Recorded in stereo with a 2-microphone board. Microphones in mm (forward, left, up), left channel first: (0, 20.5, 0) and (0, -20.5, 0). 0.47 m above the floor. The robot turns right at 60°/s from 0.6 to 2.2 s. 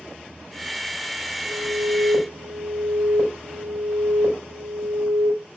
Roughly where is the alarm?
Ahead.